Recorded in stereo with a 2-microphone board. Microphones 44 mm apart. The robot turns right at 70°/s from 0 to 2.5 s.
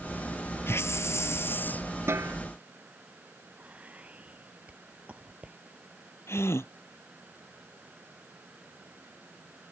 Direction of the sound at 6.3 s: 85° left.